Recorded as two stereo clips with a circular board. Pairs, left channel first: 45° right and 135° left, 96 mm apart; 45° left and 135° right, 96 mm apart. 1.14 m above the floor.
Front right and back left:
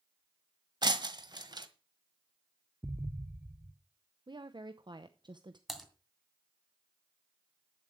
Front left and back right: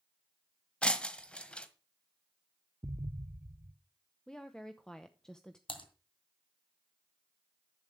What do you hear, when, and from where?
0.8 s breaking glass: 120° left, 1.4 m
2.8 s an explosion: 165° right, 0.8 m
4.3 s a woman speaking: 125° left, 0.8 m
5.7 s typing on a keyboard: 45° left, 2.5 m